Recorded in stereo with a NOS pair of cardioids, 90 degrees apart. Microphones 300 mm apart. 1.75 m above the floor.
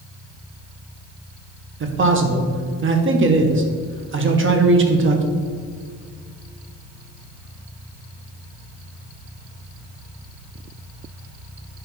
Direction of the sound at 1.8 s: 40° right.